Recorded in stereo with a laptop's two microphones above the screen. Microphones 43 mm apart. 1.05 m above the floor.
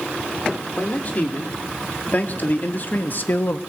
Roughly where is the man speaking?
Left.